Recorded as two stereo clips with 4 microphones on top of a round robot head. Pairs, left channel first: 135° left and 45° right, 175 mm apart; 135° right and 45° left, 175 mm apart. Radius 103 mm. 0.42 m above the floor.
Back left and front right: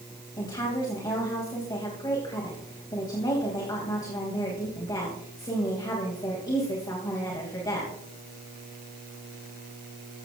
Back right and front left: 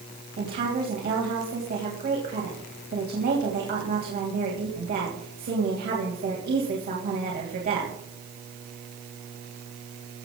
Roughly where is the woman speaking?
Left.